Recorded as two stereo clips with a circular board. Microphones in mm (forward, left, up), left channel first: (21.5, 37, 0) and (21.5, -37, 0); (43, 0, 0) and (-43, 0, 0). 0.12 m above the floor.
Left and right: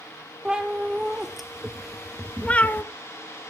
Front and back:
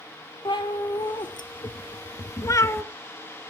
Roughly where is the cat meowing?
Ahead.